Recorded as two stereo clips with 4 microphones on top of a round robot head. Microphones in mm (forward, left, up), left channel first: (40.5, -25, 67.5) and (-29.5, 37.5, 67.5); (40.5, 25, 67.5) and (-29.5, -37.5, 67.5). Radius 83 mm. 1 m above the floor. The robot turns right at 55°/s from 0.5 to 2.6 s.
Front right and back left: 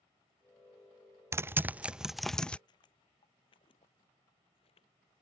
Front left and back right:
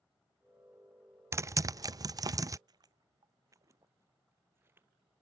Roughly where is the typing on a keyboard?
Behind.